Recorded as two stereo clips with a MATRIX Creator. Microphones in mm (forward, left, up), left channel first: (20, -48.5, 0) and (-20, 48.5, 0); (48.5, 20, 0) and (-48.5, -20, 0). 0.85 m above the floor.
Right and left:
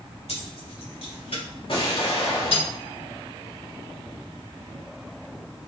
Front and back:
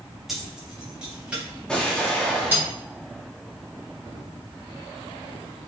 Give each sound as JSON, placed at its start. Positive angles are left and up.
{"t": 0.3, "sound": "keys jangling", "azimuth_deg": -70, "distance_m": 3.5}
{"t": 1.7, "sound": "an explosion", "azimuth_deg": -60, "distance_m": 2.0}